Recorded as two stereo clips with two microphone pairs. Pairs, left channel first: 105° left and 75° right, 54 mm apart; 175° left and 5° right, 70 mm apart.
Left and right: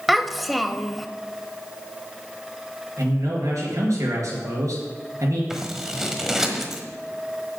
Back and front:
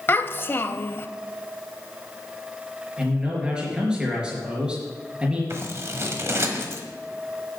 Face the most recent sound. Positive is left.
turn(degrees=5)